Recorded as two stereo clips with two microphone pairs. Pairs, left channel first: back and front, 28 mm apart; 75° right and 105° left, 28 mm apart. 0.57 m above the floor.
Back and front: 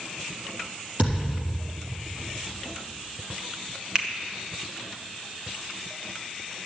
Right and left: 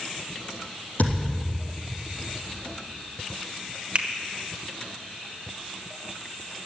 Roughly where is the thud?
Ahead right.